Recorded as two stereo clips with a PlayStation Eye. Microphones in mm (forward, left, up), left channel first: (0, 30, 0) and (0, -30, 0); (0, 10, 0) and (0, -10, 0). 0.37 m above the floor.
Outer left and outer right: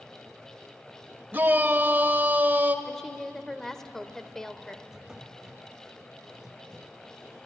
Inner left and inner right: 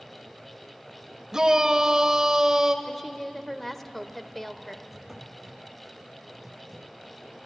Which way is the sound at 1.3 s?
30° right (ahead or behind).